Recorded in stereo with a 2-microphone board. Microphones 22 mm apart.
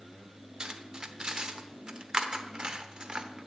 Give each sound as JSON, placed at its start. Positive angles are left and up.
{"t": 0.6, "sound": "cutlery clinking", "side_deg": -35, "distance_m": 0.9}